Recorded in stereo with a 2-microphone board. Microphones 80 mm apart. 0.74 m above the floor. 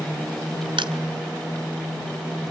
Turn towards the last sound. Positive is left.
turn(degrees=-85)